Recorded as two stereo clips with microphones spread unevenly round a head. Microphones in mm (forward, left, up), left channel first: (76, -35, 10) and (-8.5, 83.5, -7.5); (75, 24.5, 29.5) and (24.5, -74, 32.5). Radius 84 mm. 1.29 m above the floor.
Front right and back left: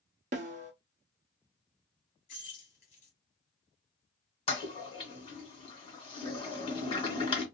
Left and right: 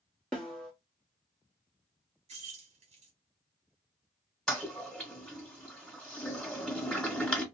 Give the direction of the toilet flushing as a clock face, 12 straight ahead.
1 o'clock.